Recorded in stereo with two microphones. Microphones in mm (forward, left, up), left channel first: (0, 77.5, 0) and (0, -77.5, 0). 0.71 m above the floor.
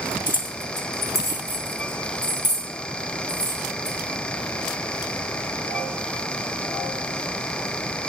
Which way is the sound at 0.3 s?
60° left (ahead or behind).